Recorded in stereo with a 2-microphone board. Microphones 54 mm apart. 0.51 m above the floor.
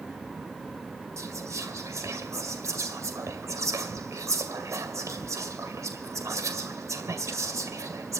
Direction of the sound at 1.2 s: 65° right (ahead or behind).